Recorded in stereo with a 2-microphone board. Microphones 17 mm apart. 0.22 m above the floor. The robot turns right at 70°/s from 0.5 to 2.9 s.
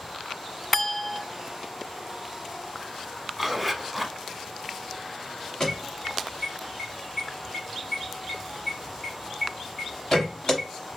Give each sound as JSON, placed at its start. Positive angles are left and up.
{"t": 0.7, "sound": "a clink", "azimuth_deg": 150, "distance_m": 0.7}
{"t": 3.4, "sound": "a zipper", "side_deg": -5, "distance_m": 0.6}
{"t": 5.6, "sound": "an alarm", "side_deg": 35, "distance_m": 1.4}